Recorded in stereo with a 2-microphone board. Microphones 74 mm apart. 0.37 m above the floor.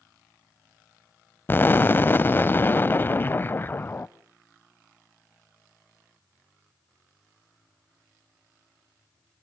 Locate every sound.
1.5 s an explosion: 30° left (ahead or behind), 0.6 m